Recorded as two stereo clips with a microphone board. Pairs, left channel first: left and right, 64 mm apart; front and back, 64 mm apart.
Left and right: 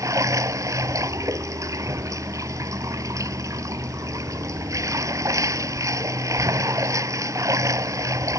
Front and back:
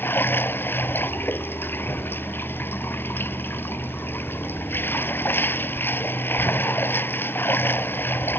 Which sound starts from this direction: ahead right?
Running water, at 0.0 s.